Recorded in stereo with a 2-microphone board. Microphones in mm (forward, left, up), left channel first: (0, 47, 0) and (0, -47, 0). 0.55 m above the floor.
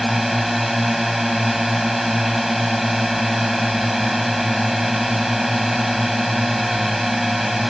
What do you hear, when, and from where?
0.0 s a drone: centre (ahead or behind)